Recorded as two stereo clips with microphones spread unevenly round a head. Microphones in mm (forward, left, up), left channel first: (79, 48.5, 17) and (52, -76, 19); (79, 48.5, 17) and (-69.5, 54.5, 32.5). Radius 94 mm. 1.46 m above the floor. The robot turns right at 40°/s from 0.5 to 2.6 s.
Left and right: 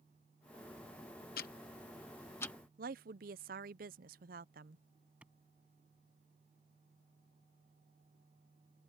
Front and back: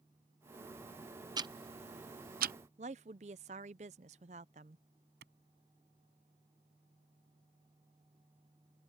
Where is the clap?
175° left.